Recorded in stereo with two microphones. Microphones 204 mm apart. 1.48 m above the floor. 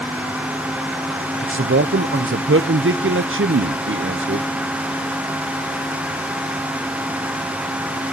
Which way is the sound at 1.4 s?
70° right (ahead or behind).